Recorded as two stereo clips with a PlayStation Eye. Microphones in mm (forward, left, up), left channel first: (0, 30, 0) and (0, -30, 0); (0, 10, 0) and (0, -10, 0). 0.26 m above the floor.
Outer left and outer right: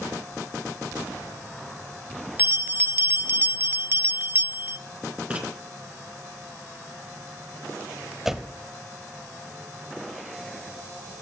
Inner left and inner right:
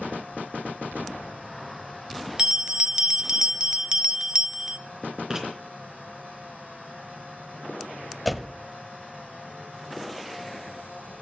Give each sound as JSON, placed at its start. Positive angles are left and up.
{"t": 2.4, "sound": "a bell", "side_deg": -35, "distance_m": 0.6}
{"t": 5.3, "sound": "writing", "side_deg": -25, "distance_m": 3.5}
{"t": 8.2, "sound": "a door slam", "side_deg": -5, "distance_m": 0.7}